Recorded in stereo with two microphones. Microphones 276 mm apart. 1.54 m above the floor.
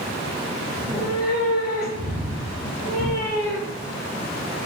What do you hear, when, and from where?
0.8 s a cat meowing: 5° right (ahead or behind), 4 m